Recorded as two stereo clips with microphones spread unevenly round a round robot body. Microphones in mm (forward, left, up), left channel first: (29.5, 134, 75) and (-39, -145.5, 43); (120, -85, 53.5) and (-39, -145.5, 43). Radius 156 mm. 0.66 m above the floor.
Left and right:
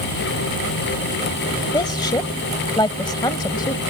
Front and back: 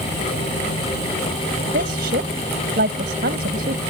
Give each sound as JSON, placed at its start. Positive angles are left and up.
{"t": 1.7, "sound": "a woman speaking", "azimuth_deg": 150}